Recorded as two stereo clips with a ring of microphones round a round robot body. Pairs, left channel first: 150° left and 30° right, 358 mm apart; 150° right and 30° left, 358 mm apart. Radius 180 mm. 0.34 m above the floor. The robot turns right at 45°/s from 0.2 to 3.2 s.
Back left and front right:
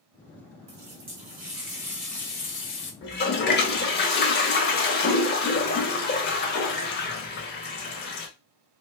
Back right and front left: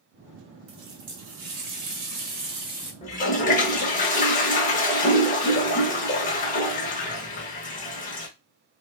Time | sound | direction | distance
0.7 | a running tap | straight ahead | 1.0 m
3.0 | a toilet flushing | 160° left | 0.7 m